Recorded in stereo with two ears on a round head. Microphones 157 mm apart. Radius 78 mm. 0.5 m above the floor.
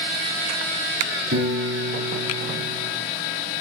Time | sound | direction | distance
1.3 | a piano | 75° right (ahead or behind) | 4 m